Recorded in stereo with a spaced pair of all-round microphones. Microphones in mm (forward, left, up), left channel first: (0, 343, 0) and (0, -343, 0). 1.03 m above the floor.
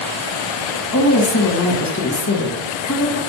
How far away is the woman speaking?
About 0.7 m.